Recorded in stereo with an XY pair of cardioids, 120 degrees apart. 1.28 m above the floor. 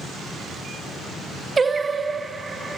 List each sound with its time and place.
1.6 s singing: 25° right, 0.5 m